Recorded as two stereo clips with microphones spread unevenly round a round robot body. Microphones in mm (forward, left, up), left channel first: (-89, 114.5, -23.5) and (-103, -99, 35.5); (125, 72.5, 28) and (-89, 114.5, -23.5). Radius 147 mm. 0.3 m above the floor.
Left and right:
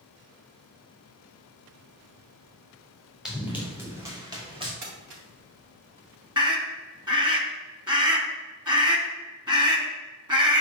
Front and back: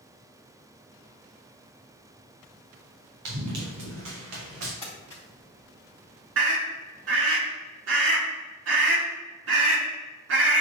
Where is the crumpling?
100° right, 3 m.